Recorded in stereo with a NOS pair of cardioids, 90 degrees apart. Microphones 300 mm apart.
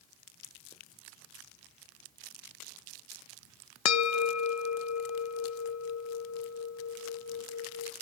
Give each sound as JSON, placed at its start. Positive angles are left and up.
{"t": 3.9, "sound": "a bell", "azimuth_deg": 65, "distance_m": 1.6}